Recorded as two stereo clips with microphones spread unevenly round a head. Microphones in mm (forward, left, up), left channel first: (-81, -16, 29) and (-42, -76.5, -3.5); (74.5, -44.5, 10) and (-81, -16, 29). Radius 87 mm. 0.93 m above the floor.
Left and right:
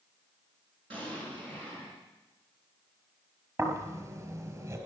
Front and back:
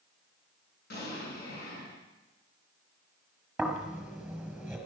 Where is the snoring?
105° right, 4 m.